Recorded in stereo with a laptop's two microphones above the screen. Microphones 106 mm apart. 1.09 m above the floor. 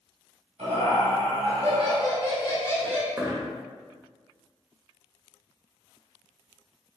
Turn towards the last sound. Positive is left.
turn(degrees=-20)  # may be behind; listen again after turning